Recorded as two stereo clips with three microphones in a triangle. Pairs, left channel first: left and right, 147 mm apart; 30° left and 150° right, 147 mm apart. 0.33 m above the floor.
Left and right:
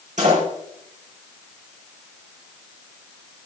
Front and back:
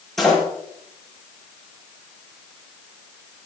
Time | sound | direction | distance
0.2 | a door slam | 60° right | 6 m